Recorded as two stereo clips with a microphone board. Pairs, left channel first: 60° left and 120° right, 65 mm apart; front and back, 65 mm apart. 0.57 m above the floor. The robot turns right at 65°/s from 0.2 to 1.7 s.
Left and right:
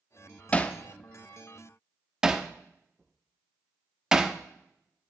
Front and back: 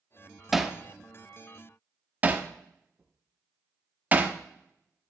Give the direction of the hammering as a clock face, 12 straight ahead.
9 o'clock.